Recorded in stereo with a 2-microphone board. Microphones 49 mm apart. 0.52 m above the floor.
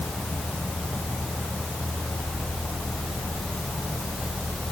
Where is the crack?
No crack in this recording.